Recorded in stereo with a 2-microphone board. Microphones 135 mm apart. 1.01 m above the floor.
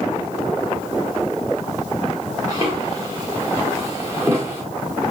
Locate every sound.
2.5 s footsteps: 25° right (ahead or behind), 9 m; by 4.6 s 15° right (ahead or behind), 6.5 m